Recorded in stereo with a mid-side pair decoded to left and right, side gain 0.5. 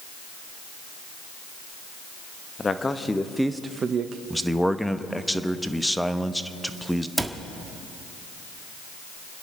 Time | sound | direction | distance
2.6 | a man speaking | 25° left | 1.3 m
4.3 | a man speaking | straight ahead | 0.9 m
7.2 | a cupboard door | 5° right | 1.5 m